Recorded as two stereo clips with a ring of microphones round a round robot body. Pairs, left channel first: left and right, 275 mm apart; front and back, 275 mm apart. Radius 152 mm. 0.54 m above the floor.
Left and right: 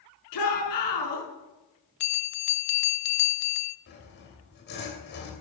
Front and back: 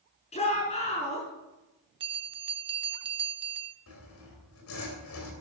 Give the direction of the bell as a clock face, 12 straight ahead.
8 o'clock.